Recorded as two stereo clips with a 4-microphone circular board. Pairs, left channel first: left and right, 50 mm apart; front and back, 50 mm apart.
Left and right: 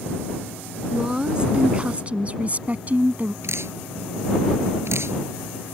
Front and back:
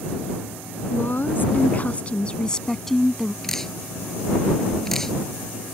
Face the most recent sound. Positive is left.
turn(degrees=-80)